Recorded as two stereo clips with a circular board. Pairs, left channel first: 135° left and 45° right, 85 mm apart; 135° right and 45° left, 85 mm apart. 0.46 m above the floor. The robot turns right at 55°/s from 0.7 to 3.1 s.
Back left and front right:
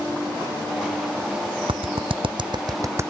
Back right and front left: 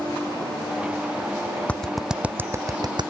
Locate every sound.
1.7 s a clap: 60° right; by 3.1 s 20° left